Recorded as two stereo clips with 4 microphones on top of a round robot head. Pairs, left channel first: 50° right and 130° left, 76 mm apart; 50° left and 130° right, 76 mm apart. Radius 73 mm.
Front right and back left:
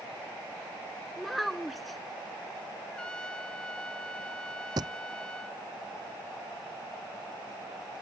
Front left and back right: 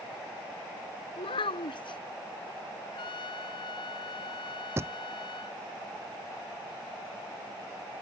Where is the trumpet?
30° left.